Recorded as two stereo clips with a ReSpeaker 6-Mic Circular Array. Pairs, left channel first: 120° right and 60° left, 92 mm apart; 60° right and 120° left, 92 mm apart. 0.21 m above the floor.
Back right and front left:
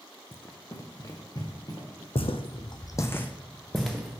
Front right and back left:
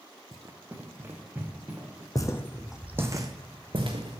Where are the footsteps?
110° right, 0.6 m; by 4.2 s 145° left, 1.3 m.